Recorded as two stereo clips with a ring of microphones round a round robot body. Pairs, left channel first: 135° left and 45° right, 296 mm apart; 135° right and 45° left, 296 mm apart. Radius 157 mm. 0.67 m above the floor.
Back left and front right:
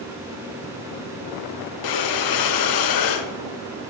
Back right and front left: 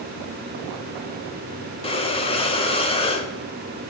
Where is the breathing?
155° left, 0.7 m.